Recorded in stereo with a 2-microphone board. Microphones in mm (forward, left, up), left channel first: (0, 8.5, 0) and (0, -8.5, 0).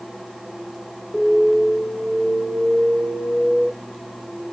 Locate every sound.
1.1 s an alarm: 40° left (ahead or behind), 4 m